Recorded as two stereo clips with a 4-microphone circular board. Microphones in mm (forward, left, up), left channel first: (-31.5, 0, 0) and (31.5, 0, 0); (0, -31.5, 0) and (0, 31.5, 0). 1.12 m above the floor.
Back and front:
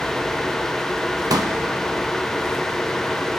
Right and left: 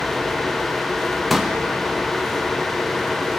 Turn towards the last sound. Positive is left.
turn(degrees=0)